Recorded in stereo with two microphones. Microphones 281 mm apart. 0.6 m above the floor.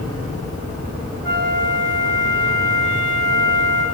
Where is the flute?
40° right (ahead or behind), 2 m.